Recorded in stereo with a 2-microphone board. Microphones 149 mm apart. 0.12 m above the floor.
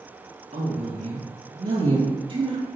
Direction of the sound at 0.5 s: 45° right (ahead or behind).